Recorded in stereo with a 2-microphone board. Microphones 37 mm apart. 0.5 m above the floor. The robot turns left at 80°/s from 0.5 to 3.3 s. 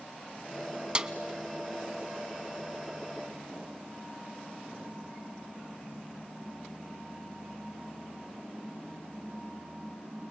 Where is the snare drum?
30° right (ahead or behind), 0.7 m; by 1.1 s 20° right (ahead or behind), 0.7 m.